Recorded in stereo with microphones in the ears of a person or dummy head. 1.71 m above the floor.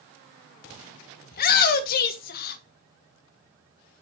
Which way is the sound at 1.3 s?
50° left (ahead or behind).